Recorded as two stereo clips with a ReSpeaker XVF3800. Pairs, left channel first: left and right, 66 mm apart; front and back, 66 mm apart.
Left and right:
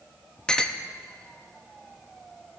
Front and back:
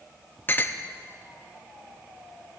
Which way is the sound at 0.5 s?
20° left.